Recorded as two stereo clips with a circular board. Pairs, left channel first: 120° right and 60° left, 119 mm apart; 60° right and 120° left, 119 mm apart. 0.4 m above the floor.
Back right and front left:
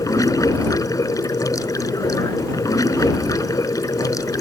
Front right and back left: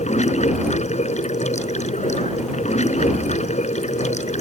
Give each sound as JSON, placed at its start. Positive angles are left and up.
{"t": 0.0, "sound": "running water", "azimuth_deg": -60}